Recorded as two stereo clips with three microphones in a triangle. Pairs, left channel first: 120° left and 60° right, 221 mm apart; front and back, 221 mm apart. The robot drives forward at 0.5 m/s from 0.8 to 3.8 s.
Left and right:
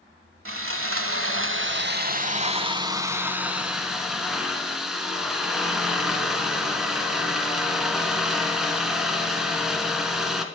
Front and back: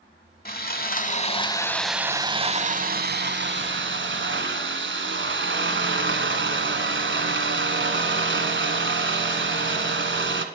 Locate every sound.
0.5 s sawing: 50° right, 0.8 m; by 10.4 s 150° right, 1.2 m